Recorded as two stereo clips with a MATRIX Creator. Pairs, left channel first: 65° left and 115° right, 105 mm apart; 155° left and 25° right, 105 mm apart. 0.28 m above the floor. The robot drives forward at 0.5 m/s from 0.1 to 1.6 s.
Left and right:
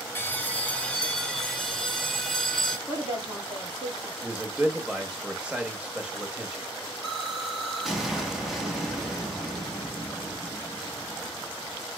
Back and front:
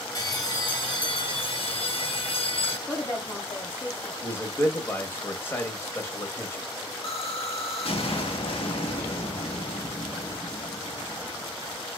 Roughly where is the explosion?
Behind.